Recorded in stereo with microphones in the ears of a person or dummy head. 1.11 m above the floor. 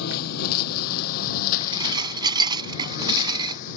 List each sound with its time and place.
0.0 s a lawn mower: 50° left (ahead or behind); by 3.8 s 45° left (ahead or behind)
1.6 s dishes clattering: 30° right (ahead or behind)